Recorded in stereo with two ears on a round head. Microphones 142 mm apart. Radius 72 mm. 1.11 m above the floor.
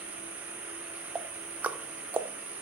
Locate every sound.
0.0 s an insect: 15° right (ahead or behind), 3.5 m
1.1 s ticking: 10° right (ahead or behind), 0.6 m